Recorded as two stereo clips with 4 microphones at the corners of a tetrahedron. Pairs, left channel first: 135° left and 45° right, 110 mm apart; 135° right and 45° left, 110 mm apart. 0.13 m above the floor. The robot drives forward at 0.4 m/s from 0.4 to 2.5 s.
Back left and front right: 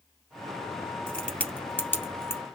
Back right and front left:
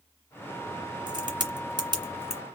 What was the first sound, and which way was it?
A crack, 55° left.